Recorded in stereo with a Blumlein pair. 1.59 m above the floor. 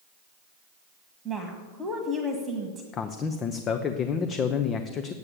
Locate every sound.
1.2 s a woman speaking: 15° right, 1.5 m
2.9 s a man speaking: 25° left, 0.7 m